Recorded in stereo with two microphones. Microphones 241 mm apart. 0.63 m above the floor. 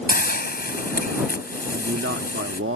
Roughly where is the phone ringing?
I don't hear a phone ringing.